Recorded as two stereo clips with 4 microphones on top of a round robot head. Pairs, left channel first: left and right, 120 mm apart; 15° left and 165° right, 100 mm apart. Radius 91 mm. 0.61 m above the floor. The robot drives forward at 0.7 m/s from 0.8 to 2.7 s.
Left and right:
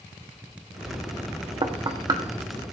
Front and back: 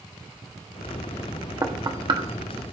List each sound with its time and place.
1.6 s knocking: 120° right, 1.0 m; by 2.2 s 140° right, 1.3 m